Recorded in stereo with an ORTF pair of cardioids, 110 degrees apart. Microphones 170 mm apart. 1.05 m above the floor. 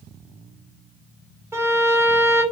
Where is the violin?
15° right, 0.9 m.